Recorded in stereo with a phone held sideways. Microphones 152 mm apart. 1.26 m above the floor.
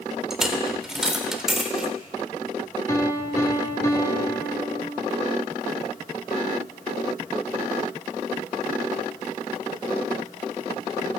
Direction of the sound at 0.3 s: 5° right (ahead or behind).